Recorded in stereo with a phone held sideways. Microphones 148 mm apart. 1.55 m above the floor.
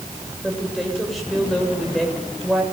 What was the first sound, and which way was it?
A woman speaking, centre (ahead or behind).